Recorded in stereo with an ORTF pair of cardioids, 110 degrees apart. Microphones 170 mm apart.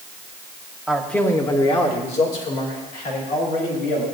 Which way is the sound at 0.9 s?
5° right.